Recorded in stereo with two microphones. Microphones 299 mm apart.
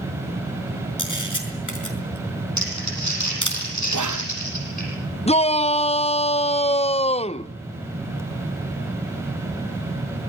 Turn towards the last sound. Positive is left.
turn(degrees=20)  # may be behind; listen again after turning